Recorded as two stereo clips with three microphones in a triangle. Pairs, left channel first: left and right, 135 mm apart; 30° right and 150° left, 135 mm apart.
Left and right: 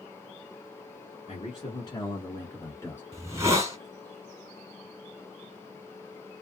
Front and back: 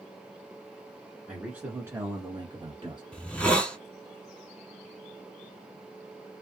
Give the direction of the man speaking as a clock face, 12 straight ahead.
10 o'clock.